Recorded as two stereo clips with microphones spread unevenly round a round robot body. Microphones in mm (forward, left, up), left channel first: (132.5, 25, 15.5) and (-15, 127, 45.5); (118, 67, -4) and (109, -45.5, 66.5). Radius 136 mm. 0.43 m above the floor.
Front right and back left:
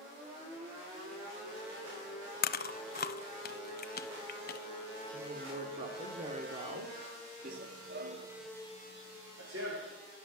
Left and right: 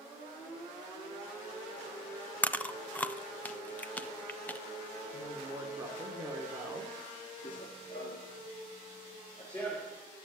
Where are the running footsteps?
155° left, 0.5 m; by 10.0 s 170° left, 1.9 m.